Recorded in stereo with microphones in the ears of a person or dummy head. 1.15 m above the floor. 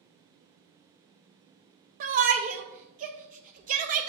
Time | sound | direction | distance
2.0 | a shout | 40° right (ahead or behind) | 0.5 m